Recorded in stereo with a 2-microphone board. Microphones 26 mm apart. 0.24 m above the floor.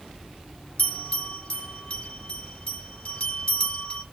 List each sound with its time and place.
0.8 s a bell: 55° left (ahead or behind), 2 m